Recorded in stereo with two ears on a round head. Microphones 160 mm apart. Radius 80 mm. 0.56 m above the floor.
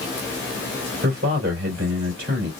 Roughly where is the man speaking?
Right.